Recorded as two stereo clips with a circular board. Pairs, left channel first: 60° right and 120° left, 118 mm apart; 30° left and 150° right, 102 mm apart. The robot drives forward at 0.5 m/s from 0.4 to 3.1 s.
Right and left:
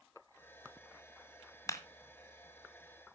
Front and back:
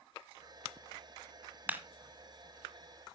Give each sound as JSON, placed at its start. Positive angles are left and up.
{"t": 1.7, "sound": "a clap", "azimuth_deg": -95, "distance_m": 1.5}